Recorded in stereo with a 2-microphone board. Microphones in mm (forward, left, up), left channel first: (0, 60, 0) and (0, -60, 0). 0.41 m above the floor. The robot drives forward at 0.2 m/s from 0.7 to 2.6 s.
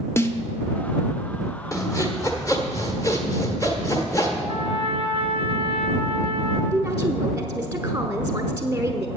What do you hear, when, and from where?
0.2 s a snare drum: 20° left (ahead or behind), 0.8 m
1.7 s sawing: 25° left (ahead or behind), 1.4 m
4.5 s a trumpet: 50° left (ahead or behind), 1.9 m
6.7 s a woman speaking: 20° right (ahead or behind), 0.9 m